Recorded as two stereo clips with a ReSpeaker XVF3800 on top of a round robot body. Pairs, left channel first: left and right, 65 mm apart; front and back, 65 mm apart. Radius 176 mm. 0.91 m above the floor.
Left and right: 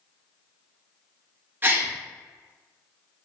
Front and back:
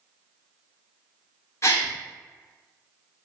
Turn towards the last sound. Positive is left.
turn(degrees=-35)